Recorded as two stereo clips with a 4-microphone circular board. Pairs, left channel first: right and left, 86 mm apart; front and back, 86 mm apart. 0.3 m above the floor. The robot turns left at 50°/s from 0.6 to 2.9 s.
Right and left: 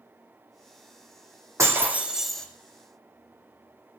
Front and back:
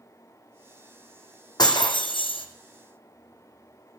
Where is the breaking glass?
35° left, 1.1 m; by 2.5 s 10° right, 1.1 m.